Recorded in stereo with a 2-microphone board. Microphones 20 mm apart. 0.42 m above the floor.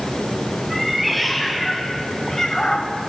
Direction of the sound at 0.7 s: Centre (ahead or behind).